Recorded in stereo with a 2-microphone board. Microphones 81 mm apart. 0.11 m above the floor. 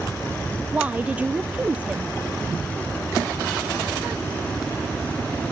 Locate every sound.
0.7 s a woman speaking: 20° right (ahead or behind)